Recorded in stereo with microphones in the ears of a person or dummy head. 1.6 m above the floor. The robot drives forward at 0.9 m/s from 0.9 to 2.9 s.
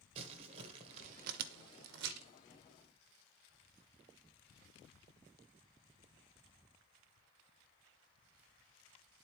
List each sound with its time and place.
0.1 s crumpling: 40° right (ahead or behind), 1.0 m; by 2.3 s 55° right (ahead or behind), 0.8 m